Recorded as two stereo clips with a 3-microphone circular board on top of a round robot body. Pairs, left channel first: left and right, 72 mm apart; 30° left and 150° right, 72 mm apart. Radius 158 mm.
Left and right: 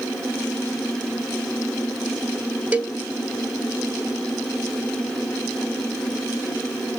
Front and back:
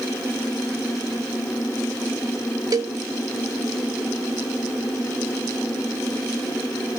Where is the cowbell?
155° right, 0.7 m.